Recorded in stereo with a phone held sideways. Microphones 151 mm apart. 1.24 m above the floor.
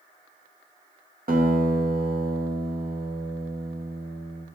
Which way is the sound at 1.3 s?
75° right (ahead or behind).